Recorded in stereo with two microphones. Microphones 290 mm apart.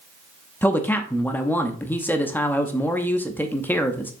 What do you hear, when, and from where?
0.6 s a man speaking: 5° left (ahead or behind), 0.7 m